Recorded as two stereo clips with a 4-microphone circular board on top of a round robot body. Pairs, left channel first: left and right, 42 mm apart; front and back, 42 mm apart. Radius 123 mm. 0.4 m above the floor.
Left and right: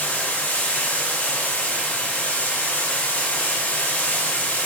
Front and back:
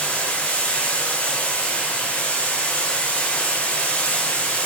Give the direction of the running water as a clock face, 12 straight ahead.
10 o'clock.